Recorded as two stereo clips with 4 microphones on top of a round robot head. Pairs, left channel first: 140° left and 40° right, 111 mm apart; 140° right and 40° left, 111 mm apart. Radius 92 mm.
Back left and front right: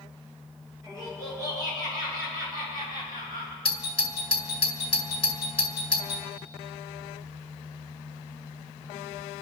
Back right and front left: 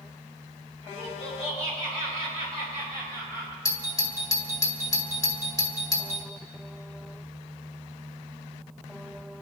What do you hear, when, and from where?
0.8 s laughter: 100° right, 8 m; by 3.5 s 90° right, 7 m
3.6 s a doorbell: 165° left, 2 m